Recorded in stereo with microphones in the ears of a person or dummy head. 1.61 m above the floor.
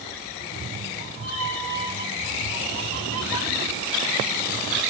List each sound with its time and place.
0.3 s a cat meowing: 40° right (ahead or behind), 2.5 m; by 4.8 s 15° right (ahead or behind), 2.5 m